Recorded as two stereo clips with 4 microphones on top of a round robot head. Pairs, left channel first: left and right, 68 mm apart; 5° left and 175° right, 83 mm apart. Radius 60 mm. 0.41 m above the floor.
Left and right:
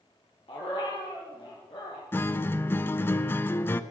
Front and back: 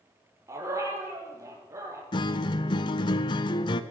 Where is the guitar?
35° left, 0.7 m.